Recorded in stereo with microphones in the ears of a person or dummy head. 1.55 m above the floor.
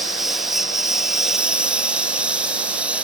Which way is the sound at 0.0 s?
5° right (ahead or behind).